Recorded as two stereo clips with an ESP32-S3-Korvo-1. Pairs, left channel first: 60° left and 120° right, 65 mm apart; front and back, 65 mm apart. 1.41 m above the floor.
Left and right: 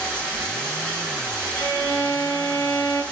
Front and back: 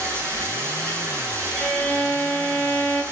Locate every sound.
0.0 s running water: 130° left, 9.5 m
1.6 s a violin: 85° left, 5.5 m